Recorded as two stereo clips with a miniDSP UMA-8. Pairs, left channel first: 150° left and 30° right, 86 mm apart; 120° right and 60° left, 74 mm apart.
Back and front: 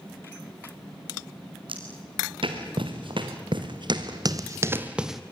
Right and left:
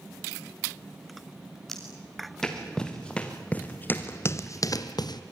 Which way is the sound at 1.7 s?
35° right.